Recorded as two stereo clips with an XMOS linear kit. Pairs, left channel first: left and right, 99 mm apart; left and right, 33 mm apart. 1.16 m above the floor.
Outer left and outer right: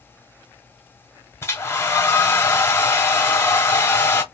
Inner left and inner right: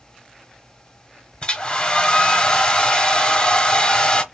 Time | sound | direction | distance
1.4 | a hair dryer | 25° left (ahead or behind) | 1.1 m